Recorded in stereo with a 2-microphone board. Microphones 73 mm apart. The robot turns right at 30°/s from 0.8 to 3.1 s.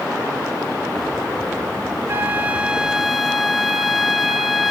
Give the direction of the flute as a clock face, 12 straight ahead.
1 o'clock.